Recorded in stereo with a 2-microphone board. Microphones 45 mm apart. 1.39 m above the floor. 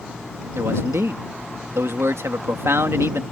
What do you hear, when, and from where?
0.6 s a man speaking: 80° right